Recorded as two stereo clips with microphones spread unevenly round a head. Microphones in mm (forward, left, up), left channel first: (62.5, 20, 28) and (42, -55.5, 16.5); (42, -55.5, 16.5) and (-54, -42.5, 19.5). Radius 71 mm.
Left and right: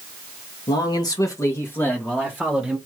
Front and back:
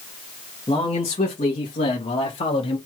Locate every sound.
0.7 s a man speaking: 50° left, 1.7 m; by 2.8 s 20° right, 1.7 m